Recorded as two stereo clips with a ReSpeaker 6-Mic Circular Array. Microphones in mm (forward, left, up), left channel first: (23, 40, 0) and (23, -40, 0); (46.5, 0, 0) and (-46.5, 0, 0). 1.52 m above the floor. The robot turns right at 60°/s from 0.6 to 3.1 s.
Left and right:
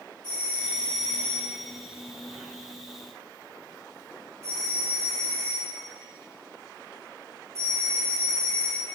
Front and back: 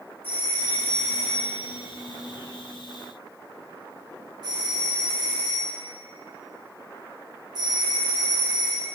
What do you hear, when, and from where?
0.2 s a doorbell: 70° left, 4 m; by 8.9 s 140° right, 4 m